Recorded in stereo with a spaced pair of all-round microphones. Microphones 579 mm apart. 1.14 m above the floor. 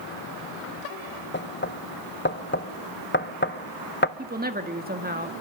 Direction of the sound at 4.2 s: 15° right (ahead or behind).